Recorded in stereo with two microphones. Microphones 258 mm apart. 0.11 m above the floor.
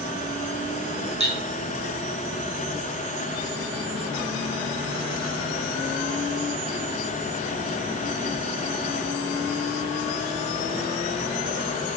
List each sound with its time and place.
1.2 s cutlery clinking: 25° right (ahead or behind), 3 m